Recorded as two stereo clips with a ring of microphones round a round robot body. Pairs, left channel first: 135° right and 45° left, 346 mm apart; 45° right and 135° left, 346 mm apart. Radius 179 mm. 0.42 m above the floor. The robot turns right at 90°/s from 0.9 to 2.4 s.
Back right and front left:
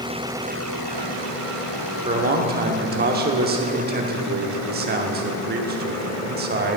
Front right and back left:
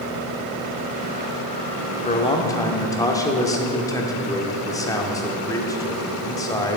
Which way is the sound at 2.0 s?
5° right.